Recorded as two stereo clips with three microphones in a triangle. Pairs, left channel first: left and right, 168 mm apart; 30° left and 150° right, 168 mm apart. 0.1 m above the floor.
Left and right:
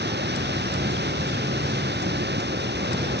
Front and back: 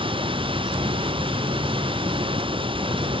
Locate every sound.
0.0 s running water: 90° right